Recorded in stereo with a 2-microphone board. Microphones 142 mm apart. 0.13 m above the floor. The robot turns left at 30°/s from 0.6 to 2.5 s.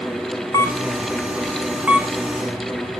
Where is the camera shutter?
25° left (ahead or behind), 1.5 m; by 3.0 s 25° right (ahead or behind), 1.5 m.